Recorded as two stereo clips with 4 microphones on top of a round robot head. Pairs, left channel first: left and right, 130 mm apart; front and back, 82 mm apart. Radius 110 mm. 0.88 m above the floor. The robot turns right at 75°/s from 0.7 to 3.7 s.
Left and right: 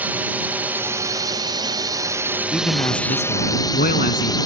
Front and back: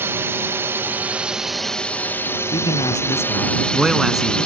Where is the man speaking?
5° left; by 4.4 s 95° left.